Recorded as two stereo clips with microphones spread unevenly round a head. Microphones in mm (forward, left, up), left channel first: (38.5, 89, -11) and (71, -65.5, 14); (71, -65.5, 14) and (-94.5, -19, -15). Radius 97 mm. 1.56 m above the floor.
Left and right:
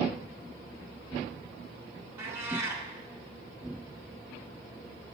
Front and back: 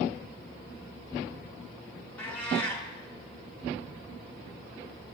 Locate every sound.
2.2 s a cat meowing: 60° right, 1.2 m